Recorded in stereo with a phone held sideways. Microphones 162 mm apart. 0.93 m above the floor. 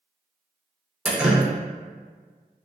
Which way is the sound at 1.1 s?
5° right (ahead or behind).